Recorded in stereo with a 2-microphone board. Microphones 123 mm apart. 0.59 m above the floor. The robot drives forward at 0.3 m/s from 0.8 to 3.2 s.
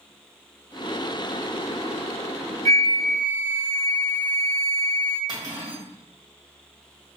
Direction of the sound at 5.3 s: 35° left (ahead or behind).